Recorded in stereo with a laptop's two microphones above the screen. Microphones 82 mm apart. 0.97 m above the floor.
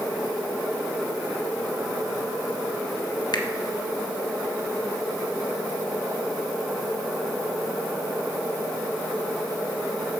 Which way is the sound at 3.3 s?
65° left (ahead or behind).